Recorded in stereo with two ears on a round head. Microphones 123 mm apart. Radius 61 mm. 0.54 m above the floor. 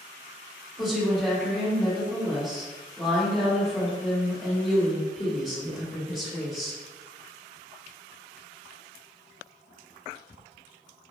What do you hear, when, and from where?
0.8 s a woman speaking: 5° left (ahead or behind), 1.8 m